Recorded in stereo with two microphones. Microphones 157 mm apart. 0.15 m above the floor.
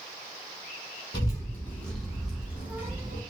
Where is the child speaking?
25° left (ahead or behind), 1.0 m; by 3.2 s 20° right (ahead or behind), 1.5 m.